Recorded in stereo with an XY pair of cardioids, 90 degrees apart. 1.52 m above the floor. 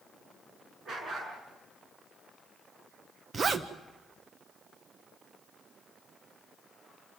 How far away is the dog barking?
About 6.5 m.